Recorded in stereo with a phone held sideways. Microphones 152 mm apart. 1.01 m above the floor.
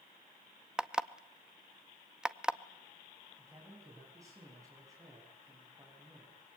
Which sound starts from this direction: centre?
An alarm clock, at 0.8 s.